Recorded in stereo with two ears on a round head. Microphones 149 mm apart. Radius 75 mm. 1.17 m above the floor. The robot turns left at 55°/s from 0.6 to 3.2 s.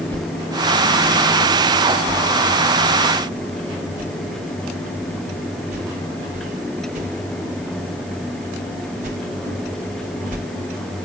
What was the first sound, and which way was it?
A whoosh, 5° left (ahead or behind).